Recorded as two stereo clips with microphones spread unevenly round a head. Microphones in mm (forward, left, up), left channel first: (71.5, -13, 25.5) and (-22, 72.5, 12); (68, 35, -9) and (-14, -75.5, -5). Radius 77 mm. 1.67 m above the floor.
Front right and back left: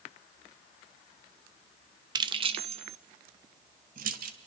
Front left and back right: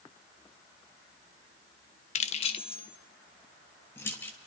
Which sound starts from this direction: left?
Keys jangling, at 2.1 s.